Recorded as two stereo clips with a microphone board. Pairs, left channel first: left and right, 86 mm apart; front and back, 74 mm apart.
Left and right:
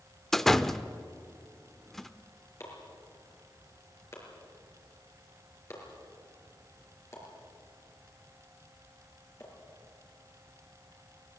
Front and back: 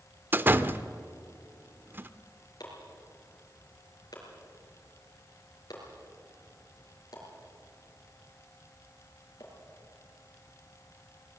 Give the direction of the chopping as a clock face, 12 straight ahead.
11 o'clock.